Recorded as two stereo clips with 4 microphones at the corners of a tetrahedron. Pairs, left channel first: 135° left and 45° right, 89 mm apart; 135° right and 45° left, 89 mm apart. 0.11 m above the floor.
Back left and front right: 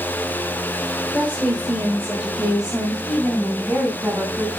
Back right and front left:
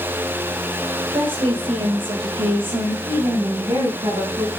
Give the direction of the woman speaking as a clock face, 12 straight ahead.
10 o'clock.